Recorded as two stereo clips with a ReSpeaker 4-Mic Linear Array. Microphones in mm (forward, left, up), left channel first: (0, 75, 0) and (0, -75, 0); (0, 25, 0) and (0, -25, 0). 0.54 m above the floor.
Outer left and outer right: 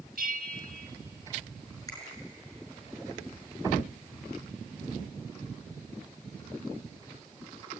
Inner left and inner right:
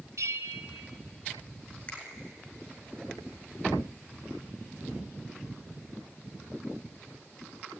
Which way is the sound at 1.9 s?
25° left (ahead or behind).